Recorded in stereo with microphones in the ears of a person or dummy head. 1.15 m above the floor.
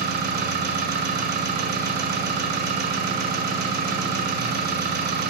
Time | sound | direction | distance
0.0 | an engine running | 50° right (ahead or behind) | 1.4 m